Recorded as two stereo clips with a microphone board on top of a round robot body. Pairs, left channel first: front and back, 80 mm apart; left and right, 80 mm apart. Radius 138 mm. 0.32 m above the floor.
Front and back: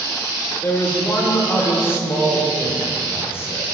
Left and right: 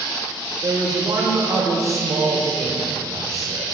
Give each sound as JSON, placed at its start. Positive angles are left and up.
{"t": 0.6, "sound": "a man speaking", "azimuth_deg": -55, "distance_m": 1.8}